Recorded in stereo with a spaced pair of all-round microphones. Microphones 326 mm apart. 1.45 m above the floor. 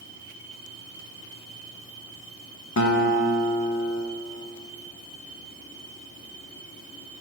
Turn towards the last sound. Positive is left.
turn(degrees=55)  # may be behind; listen again after turning